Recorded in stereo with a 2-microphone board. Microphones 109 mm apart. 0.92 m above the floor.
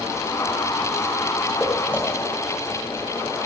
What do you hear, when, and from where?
1.6 s footsteps: 10° left (ahead or behind), 9.5 m; by 3.5 s 20° left (ahead or behind), 9.5 m